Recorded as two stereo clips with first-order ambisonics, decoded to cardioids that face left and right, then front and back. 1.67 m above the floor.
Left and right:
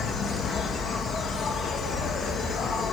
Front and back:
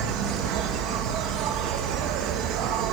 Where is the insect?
155° left, 1.7 m.